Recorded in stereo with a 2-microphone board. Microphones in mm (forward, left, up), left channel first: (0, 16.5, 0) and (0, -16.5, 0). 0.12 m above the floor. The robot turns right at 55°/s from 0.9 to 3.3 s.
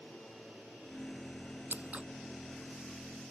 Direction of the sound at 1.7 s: 50° right (ahead or behind).